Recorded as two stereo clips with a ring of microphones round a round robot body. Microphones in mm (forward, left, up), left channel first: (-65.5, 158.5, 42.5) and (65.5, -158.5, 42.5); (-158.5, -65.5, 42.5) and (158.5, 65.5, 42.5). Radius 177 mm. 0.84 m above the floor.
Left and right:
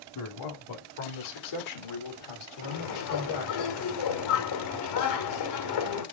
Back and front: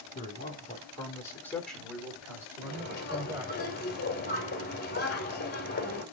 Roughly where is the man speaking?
Behind left.